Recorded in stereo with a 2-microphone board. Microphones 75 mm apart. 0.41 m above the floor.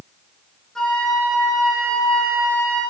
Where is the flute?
5° left (ahead or behind), 8 m.